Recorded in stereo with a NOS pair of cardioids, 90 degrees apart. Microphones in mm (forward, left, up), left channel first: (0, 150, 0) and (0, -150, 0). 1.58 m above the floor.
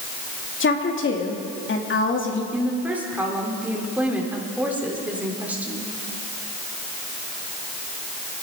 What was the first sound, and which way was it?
A woman speaking, 40° left.